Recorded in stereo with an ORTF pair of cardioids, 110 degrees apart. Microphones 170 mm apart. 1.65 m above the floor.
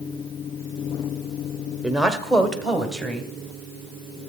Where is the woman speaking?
5° right, 0.9 m; by 3.3 s straight ahead, 1.8 m.